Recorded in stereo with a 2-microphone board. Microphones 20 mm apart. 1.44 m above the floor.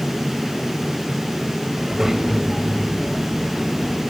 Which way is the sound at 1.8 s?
25° right (ahead or behind).